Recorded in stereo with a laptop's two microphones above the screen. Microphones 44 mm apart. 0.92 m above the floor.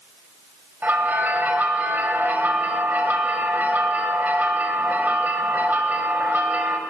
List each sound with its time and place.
0.8 s a bell: 45° right (ahead or behind), 1.4 m